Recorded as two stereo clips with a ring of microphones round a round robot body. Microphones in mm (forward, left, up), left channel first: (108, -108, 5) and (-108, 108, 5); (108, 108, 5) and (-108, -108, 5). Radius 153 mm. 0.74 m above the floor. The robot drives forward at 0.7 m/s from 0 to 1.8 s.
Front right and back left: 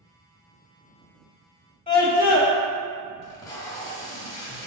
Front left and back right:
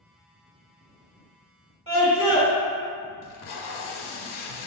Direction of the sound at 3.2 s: 30° left.